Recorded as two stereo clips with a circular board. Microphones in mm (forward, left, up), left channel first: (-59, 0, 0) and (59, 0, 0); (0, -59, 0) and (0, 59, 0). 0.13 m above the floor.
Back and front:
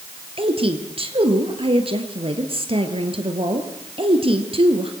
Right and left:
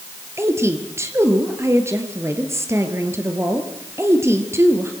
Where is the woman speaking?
25° left, 3 m.